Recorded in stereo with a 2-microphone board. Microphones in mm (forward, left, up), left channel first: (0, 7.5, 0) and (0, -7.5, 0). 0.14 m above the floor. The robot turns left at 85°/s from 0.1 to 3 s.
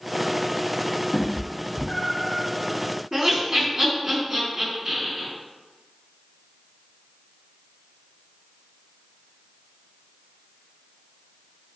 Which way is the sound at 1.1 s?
30° left (ahead or behind).